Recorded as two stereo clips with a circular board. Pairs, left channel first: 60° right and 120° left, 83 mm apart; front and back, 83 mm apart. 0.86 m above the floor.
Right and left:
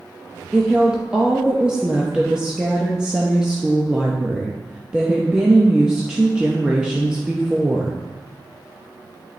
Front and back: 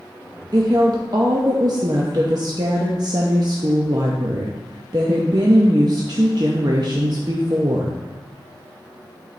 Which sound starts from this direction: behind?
A woman speaking, at 0.5 s.